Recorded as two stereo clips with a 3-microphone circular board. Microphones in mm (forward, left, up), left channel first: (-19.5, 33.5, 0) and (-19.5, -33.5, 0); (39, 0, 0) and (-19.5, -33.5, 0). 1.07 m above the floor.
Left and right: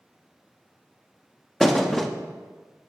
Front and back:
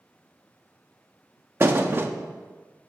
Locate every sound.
1.6 s a thud: straight behind, 0.6 m